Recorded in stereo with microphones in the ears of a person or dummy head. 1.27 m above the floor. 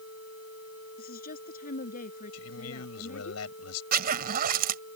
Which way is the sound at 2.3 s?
85° left.